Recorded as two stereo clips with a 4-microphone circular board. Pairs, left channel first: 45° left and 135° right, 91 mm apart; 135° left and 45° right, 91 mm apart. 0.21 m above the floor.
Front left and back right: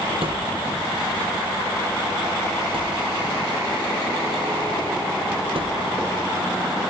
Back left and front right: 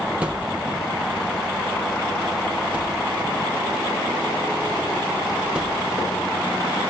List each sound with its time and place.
0.2 s a thud: 120° right, 2.5 m